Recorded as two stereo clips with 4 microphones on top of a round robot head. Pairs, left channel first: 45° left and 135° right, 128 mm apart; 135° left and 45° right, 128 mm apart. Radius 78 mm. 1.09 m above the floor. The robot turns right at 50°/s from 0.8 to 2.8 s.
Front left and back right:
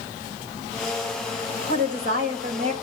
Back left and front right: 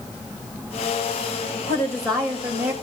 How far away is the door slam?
No door slam in this recording.